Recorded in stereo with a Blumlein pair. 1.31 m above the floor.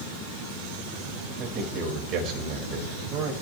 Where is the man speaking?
35° right, 5 m.